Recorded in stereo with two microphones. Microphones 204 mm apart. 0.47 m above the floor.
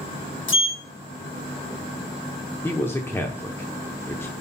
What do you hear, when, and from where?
0.5 s a sliding door: 75° left (ahead or behind), 0.9 m
2.6 s a man speaking: 10° left (ahead or behind), 0.8 m